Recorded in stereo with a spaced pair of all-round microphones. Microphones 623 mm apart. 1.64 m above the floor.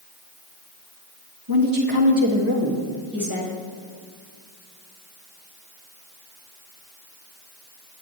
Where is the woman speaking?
35° right (ahead or behind), 2 m; by 3.6 s 25° right (ahead or behind), 3.5 m.